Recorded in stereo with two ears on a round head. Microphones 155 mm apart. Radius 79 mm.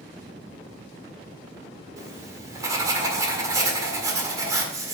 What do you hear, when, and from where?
2.0 s writing: 20° right (ahead or behind), 1.7 m